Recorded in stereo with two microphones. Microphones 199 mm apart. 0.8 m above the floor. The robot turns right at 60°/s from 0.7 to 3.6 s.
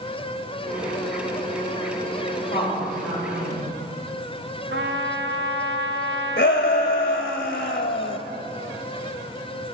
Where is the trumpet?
70° right (ahead or behind), 0.6 m.